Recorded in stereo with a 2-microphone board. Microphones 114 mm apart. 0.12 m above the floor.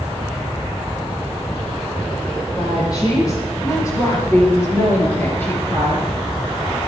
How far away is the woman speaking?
About 5 m.